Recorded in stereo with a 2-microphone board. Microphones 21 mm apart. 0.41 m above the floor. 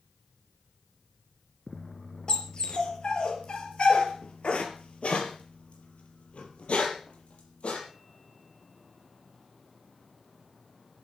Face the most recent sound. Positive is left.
turn(degrees=80)